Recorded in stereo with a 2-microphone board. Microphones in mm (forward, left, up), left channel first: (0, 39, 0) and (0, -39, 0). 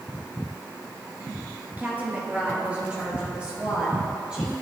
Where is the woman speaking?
25° right (ahead or behind), 1.3 m; by 4.5 s 10° right (ahead or behind), 3 m.